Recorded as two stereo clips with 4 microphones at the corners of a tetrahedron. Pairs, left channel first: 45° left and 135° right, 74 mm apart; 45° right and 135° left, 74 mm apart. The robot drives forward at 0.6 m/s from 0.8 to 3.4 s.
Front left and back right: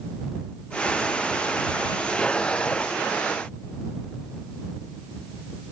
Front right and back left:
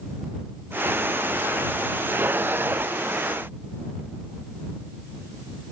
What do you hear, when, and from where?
Only background noise.